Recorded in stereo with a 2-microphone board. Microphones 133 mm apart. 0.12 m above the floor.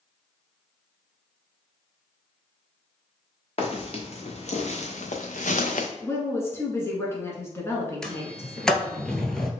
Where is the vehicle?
No vehicle in this recording.